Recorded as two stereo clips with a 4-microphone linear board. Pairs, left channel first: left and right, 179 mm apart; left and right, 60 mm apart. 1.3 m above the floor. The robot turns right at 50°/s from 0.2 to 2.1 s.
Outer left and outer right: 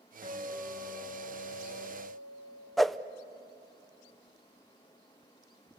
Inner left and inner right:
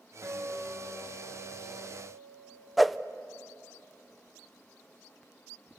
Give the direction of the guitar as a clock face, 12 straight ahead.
2 o'clock.